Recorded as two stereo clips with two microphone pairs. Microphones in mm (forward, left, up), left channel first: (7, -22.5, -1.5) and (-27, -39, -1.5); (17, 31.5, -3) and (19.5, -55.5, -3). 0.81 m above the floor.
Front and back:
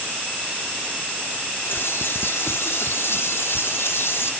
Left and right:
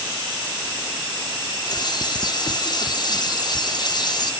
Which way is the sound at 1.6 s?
50° left.